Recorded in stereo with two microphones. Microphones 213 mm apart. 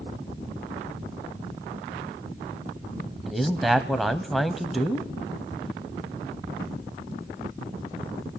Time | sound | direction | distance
3.3 | a man speaking | centre (ahead or behind) | 1.1 m